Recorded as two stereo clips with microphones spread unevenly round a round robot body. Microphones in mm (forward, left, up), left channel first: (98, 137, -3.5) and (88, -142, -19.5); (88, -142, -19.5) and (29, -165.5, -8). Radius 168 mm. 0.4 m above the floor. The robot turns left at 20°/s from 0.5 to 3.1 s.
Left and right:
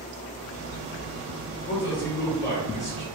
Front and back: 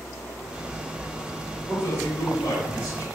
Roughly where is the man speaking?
Ahead left.